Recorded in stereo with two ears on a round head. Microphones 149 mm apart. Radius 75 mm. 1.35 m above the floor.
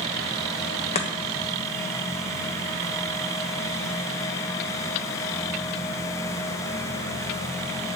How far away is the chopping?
About 1.4 m.